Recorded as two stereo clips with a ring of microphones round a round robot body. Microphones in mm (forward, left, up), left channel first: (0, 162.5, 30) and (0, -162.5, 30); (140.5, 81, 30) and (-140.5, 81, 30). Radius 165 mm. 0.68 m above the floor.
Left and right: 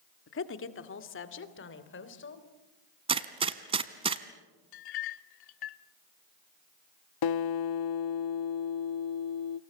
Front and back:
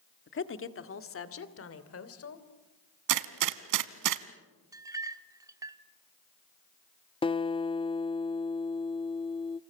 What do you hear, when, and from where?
0.3 s a woman speaking: 40° left, 1.7 m; by 2.5 s 35° left, 3.5 m
3.1 s a gunshot: 165° right, 1.0 m
4.7 s a clink: 100° left, 1.2 m
7.2 s a guitar: 75° left, 0.8 m